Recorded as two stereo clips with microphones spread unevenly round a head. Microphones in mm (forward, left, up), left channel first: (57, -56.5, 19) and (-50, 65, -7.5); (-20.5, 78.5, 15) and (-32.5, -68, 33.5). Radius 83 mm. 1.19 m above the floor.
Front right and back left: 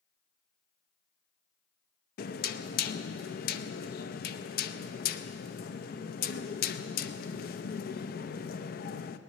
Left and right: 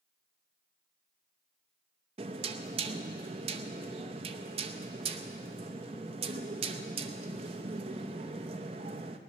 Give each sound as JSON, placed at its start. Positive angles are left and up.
{"t": 2.2, "sound": "knocking", "azimuth_deg": -45, "distance_m": 0.6}